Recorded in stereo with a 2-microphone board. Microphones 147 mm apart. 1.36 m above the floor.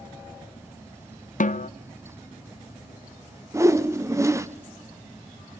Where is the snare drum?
60° left (ahead or behind), 0.6 m.